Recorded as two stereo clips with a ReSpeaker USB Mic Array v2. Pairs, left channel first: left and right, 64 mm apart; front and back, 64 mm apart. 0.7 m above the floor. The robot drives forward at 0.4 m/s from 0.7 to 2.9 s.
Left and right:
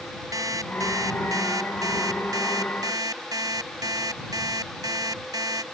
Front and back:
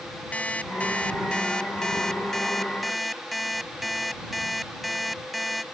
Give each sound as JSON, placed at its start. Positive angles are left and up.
{"t": 0.3, "sound": "an alarm clock", "azimuth_deg": -70}